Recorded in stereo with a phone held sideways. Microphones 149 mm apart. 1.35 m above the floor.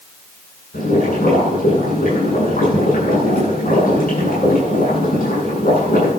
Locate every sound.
0.7 s boiling: 75° left (ahead or behind), 8.5 m